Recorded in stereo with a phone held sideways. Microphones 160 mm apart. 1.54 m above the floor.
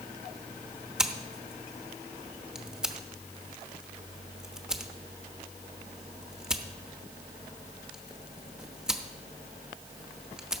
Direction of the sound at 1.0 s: 5° right (ahead or behind).